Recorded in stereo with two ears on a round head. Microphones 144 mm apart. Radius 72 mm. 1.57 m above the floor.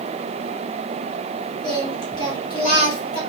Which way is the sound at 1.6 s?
30° left (ahead or behind).